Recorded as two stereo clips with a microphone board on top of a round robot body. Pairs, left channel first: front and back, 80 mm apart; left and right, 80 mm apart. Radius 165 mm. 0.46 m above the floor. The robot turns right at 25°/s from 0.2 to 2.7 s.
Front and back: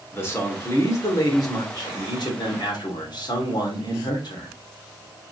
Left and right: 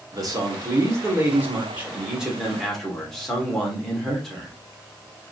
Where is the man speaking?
60° right, 2.5 m; by 4.5 s 5° left, 2.5 m.